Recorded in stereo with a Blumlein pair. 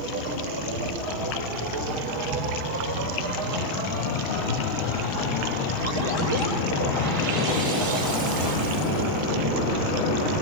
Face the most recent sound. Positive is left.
turn(degrees=-60)